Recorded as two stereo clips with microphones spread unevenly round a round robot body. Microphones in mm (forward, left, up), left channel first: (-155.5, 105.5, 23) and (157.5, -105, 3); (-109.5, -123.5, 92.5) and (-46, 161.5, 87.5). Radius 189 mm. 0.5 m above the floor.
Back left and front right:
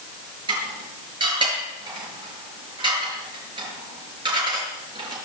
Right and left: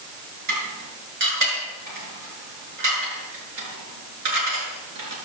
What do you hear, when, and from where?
0.5 s dishes clattering: 45° left, 6 m